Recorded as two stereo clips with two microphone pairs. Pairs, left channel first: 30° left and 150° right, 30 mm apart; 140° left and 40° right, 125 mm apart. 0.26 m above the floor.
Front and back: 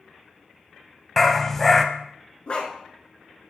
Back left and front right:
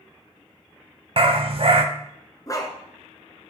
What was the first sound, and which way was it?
A dog barking, 50° right.